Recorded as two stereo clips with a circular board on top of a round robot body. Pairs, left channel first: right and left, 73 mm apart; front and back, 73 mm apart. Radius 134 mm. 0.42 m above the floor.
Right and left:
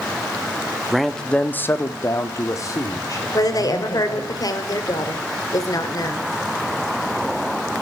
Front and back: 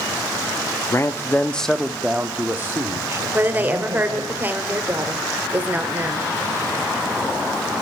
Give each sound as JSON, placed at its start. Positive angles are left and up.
{"t": 0.9, "sound": "a man speaking", "azimuth_deg": 5, "distance_m": 0.9}
{"t": 3.3, "sound": "a woman speaking", "azimuth_deg": -115, "distance_m": 2.0}